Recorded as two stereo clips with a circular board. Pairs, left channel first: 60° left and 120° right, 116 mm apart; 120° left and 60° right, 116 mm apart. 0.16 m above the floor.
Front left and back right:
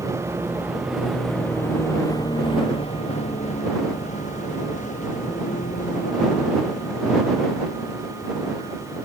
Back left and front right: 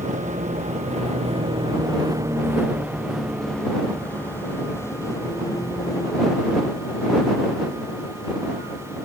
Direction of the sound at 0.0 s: 55° right.